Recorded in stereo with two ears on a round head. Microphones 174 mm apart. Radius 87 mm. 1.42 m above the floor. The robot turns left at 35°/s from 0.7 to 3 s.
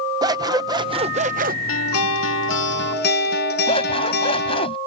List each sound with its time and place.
0.2 s scissors: 25° right; by 1.6 s 55° right
1.7 s a guitar: 100° left; by 4.7 s 55° left
3.7 s scissors: 30° left (ahead or behind)